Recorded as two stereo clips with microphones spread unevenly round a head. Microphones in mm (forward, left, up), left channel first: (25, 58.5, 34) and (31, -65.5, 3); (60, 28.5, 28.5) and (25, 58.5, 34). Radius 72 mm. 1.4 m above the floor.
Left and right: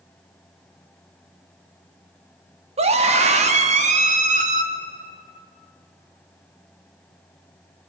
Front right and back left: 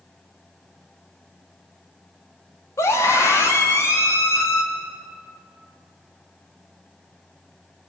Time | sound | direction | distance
2.8 | a scream | 55° right | 3 m